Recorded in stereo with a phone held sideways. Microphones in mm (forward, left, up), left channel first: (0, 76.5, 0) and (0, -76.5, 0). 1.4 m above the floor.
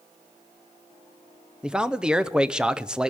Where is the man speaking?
5° right (ahead or behind), 0.6 m.